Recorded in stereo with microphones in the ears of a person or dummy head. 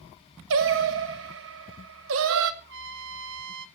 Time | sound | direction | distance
0.5 | singing | 65° right (ahead or behind) | 1.0 m
2.6 | a trumpet | 70° right (ahead or behind) | 1.5 m